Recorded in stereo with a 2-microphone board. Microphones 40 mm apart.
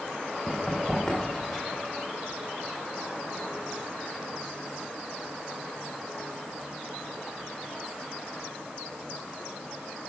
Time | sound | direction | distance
0.5 | running footsteps | 25° left (ahead or behind) | 3.5 m